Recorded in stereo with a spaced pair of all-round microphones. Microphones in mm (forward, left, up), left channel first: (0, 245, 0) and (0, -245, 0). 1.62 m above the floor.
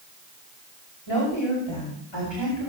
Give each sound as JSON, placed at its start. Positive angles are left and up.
{"t": 1.1, "sound": "a woman speaking", "side_deg": 70, "distance_m": 8.0}